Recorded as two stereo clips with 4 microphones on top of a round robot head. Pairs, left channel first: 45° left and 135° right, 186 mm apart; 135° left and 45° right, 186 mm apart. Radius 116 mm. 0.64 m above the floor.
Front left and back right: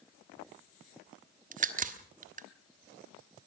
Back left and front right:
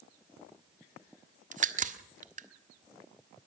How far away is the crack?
About 1.5 m.